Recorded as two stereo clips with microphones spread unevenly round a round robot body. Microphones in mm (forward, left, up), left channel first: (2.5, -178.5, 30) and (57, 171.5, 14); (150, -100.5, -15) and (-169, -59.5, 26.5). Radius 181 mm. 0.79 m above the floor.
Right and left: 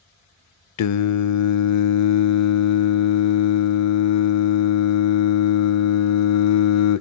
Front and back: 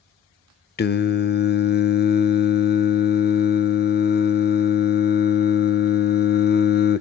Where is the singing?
70° right, 0.6 m.